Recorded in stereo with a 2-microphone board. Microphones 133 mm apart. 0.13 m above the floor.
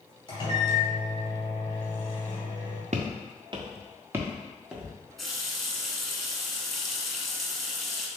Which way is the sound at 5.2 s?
Centre (ahead or behind).